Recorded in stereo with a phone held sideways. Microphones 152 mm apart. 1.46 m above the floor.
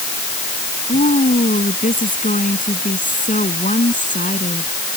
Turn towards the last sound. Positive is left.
turn(degrees=60)  # may be behind; listen again after turning